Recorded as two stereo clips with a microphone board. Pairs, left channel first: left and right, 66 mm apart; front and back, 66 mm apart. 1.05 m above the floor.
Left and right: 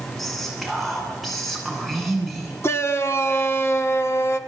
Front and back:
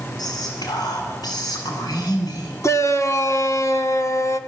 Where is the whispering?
Straight ahead, 9 m.